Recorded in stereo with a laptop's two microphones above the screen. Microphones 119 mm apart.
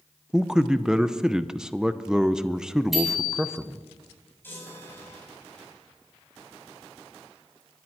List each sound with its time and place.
0.3 s a man speaking: 5° right (ahead or behind), 0.6 m
2.9 s a bicycle bell: centre (ahead or behind), 7 m
4.4 s a chime: 15° left (ahead or behind), 8.5 m